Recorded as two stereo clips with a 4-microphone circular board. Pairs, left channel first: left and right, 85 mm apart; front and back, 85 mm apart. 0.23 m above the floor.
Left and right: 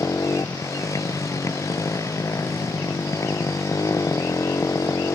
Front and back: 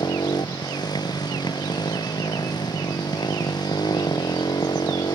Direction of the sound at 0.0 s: 35° left.